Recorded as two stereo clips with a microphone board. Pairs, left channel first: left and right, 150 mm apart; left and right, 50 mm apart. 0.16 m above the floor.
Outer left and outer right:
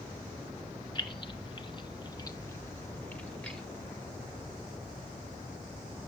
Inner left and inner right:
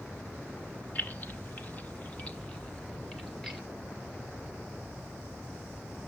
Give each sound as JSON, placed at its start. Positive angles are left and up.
{"t": 0.9, "sound": "keys jangling", "side_deg": 35, "distance_m": 1.1}